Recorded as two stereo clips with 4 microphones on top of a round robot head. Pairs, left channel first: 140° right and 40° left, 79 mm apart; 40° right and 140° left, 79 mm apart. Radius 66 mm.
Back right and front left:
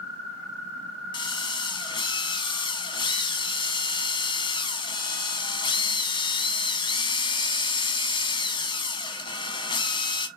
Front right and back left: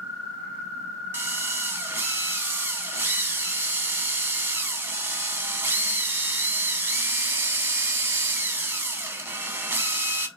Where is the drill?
160° right, 1.2 m.